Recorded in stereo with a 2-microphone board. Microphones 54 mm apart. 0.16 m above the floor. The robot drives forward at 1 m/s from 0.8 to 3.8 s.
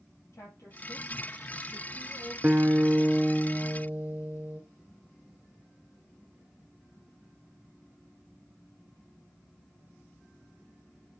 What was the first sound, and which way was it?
A woman speaking, 60° left (ahead or behind).